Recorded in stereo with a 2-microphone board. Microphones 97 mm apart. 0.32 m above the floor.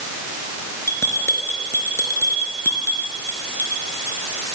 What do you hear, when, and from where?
0.9 s a bell: 25° left (ahead or behind), 4 m